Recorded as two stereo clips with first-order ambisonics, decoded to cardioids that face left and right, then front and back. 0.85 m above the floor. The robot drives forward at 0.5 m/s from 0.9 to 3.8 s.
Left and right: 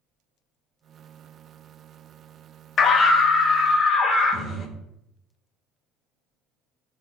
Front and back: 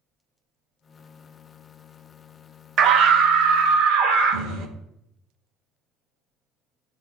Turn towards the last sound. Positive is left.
turn(degrees=165)